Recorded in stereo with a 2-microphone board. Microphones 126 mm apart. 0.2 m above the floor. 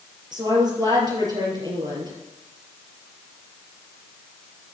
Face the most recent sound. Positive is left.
turn(degrees=-35)  # may be behind; listen again after turning